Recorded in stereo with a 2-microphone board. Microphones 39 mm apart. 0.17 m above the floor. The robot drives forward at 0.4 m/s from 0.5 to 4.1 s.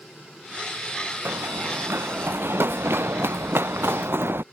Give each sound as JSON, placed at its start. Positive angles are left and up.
{"t": 1.2, "sound": "running footsteps", "side_deg": -80}